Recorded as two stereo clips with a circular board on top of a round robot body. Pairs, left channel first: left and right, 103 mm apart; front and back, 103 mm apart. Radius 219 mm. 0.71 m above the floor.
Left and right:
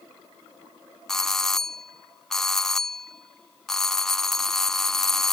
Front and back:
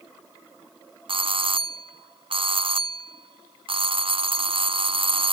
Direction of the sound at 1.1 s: 175° left.